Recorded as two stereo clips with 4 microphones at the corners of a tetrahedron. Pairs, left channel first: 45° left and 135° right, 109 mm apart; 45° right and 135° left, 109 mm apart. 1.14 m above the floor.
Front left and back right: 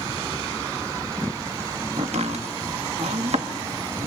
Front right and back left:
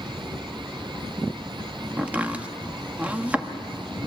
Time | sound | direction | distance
2.0 | chopping | 150° right | 1.2 m